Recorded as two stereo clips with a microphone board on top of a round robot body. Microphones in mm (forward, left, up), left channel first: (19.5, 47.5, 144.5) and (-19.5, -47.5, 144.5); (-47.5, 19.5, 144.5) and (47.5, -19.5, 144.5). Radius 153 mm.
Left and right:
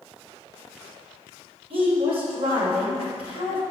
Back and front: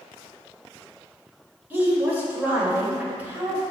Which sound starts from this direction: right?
A woman speaking, at 1.7 s.